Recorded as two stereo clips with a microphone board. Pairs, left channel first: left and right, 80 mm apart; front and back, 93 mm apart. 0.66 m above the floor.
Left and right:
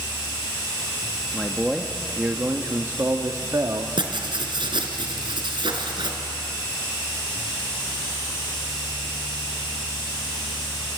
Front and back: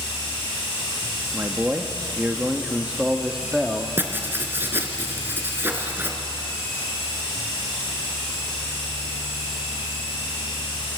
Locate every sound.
1.3 s a man speaking: 155° left, 1.2 m; by 3.9 s 95° right, 1.6 m
4.0 s writing: 110° right, 2.5 m